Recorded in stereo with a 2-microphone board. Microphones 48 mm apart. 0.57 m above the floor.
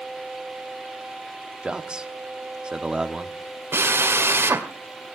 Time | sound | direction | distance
1.6 | a man speaking | 20° right (ahead or behind) | 1.1 m
3.7 | a drill | 60° right (ahead or behind) | 1.9 m